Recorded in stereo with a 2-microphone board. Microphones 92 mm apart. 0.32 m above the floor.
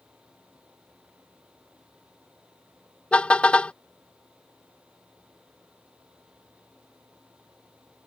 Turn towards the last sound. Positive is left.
turn(degrees=10)  # may be behind; listen again after turning